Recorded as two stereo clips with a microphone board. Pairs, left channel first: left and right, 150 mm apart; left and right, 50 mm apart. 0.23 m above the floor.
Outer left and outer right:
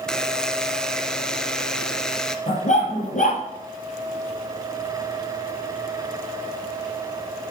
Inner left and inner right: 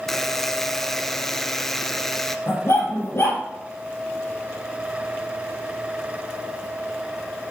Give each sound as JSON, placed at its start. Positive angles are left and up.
{"t": 0.1, "sound": "a buzzer", "side_deg": 5, "distance_m": 0.6}
{"t": 2.5, "sound": "a dog barking", "side_deg": 55, "distance_m": 2.5}